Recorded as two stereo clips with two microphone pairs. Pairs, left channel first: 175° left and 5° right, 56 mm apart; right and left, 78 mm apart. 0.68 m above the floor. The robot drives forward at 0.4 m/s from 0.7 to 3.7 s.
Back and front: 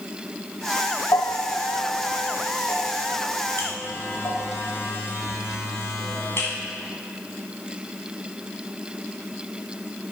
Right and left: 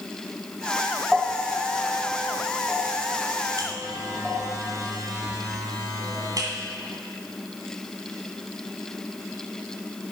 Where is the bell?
170° left, 0.5 m; by 4.5 s 175° left, 1.5 m.